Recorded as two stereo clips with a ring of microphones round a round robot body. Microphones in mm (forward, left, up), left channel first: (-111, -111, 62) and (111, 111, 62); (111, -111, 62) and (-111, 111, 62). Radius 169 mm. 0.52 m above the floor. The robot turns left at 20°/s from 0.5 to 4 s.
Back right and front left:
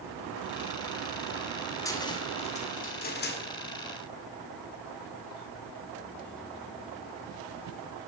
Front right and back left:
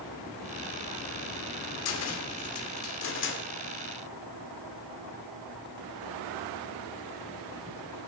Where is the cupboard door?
60° right, 2.0 m; by 3.4 s 90° right, 2.0 m.